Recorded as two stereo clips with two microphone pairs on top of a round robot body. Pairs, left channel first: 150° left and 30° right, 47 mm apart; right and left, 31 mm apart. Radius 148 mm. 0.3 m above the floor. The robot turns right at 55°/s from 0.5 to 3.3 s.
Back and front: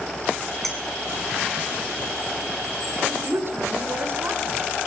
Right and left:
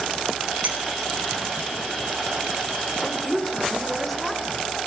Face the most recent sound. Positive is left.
turn(degrees=-10)